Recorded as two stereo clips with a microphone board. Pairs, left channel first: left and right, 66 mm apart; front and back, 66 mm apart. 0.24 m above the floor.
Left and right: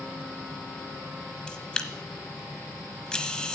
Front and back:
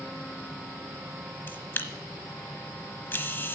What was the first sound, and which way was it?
A camera shutter, 25° left.